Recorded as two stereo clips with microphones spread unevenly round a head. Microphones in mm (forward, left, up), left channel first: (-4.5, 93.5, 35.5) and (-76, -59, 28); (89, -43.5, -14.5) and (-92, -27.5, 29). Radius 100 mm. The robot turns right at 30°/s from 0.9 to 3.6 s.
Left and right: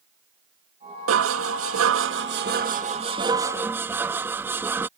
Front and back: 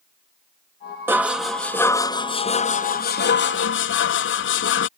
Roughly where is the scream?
No scream in this recording.